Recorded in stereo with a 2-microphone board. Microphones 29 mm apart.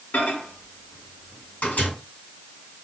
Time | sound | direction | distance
0.1 | a microwave | 65° left (ahead or behind) | 3.5 m